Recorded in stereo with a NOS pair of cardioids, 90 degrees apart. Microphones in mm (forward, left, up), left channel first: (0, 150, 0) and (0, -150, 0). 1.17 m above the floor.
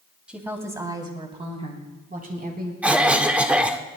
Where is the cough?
5° right, 1.5 m.